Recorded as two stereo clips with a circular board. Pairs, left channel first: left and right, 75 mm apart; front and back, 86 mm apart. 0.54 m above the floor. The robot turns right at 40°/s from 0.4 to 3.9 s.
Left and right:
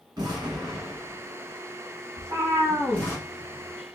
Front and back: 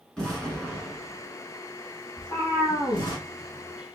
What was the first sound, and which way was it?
An explosion, 80° right.